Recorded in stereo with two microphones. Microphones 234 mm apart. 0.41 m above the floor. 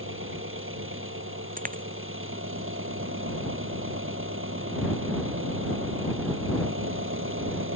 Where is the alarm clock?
I don't hear an alarm clock.